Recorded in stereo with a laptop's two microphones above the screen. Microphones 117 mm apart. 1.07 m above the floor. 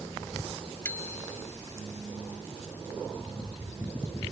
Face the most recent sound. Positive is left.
turn(degrees=20)  # may be behind; listen again after turning